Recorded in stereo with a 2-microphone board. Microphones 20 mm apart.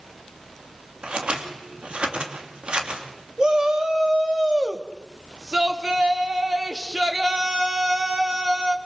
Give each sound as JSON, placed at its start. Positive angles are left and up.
{"t": 1.0, "sound": "scissors", "side_deg": -60, "distance_m": 3.0}
{"t": 3.4, "sound": "a shout", "side_deg": -35, "distance_m": 3.0}